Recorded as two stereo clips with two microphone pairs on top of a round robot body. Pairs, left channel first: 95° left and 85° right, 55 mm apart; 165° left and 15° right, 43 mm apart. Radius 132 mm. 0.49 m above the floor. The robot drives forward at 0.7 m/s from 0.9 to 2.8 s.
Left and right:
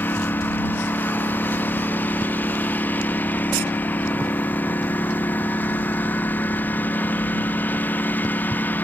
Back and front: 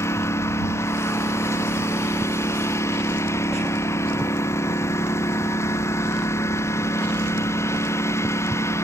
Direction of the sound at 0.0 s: 150° left.